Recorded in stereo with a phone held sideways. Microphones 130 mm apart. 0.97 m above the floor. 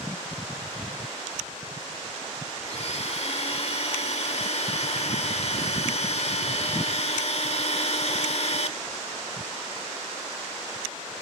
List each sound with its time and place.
2.6 s a blender: 55° left (ahead or behind), 1.4 m